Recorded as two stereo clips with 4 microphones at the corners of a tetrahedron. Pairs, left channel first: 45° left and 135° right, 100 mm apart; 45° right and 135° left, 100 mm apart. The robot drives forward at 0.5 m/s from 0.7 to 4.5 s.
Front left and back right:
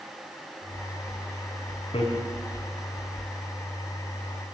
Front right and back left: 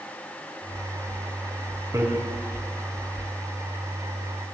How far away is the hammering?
About 4 m.